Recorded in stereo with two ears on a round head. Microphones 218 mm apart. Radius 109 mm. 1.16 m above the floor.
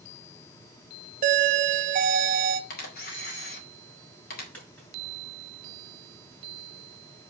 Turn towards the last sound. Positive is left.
turn(degrees=5)  # may be behind; listen again after turning